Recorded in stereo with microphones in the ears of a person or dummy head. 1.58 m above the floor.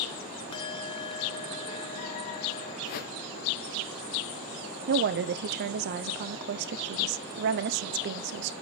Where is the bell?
25° left (ahead or behind), 0.7 m.